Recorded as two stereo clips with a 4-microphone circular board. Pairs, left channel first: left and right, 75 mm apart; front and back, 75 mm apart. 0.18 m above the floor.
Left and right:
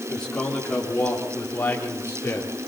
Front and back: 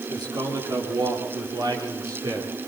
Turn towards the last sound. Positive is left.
turn(degrees=145)